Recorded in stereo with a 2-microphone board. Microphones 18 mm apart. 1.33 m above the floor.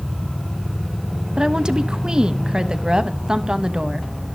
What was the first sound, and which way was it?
A woman speaking, 45° right (ahead or behind).